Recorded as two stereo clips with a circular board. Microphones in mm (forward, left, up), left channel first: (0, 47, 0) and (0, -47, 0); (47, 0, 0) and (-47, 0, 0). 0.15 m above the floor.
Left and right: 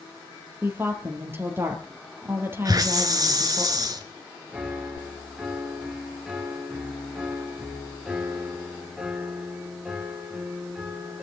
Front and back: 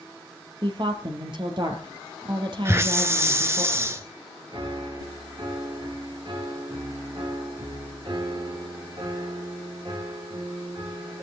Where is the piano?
175° right, 3 m.